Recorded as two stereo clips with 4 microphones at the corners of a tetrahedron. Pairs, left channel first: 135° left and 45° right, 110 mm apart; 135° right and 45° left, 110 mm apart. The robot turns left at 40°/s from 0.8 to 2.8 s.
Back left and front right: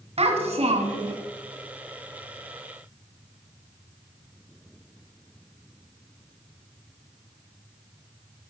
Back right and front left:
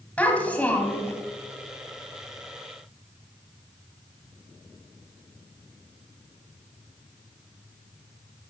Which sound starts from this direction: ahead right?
A child speaking, at 0.2 s.